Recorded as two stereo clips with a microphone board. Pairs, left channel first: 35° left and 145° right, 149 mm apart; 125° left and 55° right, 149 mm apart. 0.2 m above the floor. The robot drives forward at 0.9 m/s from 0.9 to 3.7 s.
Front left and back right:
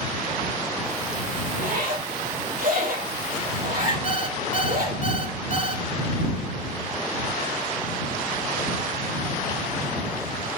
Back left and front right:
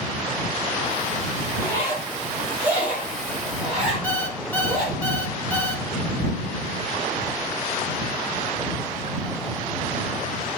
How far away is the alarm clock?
About 1.6 m.